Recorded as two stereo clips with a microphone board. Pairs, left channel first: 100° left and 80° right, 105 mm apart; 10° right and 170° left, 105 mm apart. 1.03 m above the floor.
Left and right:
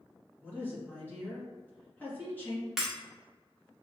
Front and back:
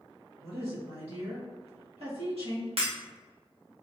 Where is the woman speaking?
170° left, 1.8 m.